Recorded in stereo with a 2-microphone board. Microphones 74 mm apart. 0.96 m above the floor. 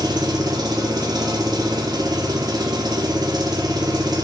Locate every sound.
0.0 s an engine running: 65° right (ahead or behind), 0.8 m